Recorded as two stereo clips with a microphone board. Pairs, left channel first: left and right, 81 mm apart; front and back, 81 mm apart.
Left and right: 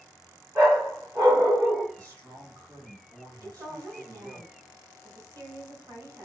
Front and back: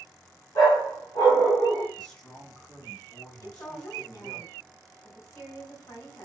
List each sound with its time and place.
0.6 s a dog barking: 30° right, 1.6 m
1.9 s a man speaking: 65° right, 1.9 m
3.4 s a woman speaking: 45° right, 1.6 m